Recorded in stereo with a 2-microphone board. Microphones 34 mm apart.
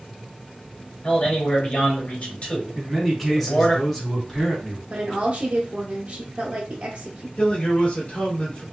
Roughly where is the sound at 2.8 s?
Centre.